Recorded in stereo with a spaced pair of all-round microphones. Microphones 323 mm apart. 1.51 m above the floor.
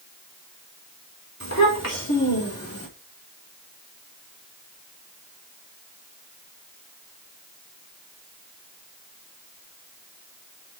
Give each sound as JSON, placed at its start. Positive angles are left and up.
{"t": 1.4, "sound": "a child speaking", "side_deg": 55, "distance_m": 2.5}